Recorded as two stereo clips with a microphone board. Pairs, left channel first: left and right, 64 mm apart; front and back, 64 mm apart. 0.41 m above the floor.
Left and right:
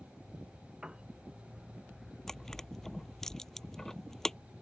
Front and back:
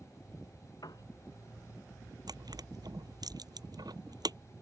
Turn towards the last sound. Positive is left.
turn(degrees=175)